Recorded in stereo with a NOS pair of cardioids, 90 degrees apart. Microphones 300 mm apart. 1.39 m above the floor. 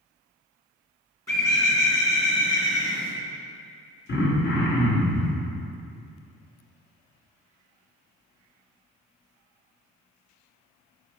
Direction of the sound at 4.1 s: 35° left.